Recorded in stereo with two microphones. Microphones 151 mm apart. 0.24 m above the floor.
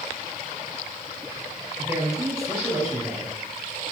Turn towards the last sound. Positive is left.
turn(degrees=-20)  # may be behind; listen again after turning